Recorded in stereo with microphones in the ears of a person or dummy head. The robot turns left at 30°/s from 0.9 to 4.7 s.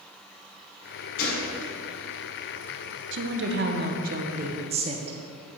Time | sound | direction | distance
1.2 | a gunshot | 50° left (ahead or behind) | 2 m
3.1 | a woman speaking | 100° right | 0.8 m